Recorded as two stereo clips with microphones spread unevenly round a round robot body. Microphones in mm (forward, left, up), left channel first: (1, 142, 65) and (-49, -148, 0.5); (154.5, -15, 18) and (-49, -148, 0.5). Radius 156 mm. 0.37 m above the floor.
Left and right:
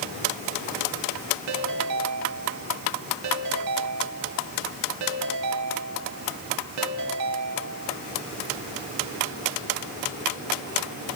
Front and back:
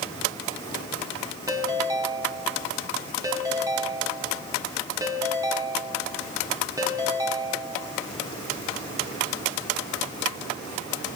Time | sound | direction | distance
1.5 | a ringtone | 70° right | 2.5 m